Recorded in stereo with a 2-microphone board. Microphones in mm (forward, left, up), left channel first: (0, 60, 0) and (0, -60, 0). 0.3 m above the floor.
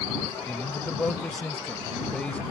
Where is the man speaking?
10° left (ahead or behind).